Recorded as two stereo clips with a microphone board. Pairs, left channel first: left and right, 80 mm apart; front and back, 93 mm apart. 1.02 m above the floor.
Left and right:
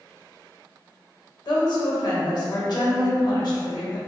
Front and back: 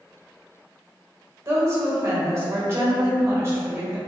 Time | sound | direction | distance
1.4 | a woman speaking | 120° left | 1.0 m